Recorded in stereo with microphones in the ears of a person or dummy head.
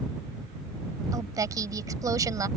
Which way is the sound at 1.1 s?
20° right (ahead or behind).